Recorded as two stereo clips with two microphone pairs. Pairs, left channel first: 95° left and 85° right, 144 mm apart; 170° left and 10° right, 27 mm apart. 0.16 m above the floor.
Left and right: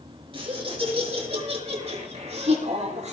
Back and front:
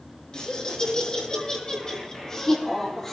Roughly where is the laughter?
Behind right.